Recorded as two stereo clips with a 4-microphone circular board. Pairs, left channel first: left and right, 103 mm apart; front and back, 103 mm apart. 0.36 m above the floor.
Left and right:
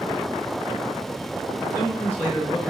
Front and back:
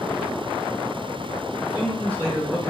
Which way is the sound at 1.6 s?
25° right.